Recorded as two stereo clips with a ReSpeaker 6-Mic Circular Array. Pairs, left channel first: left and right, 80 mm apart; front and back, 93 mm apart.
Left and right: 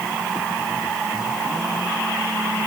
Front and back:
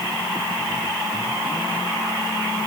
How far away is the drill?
No drill in this recording.